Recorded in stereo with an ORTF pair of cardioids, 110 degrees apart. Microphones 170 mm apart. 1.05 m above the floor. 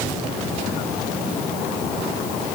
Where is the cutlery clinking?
No cutlery clinking in this recording.